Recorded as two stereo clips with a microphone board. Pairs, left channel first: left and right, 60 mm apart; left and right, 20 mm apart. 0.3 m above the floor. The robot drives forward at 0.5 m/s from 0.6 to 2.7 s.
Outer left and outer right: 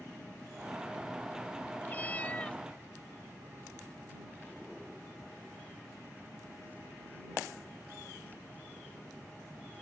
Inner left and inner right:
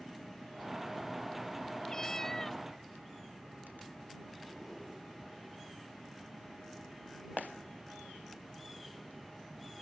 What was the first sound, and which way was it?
A cat meowing, 30° left (ahead or behind).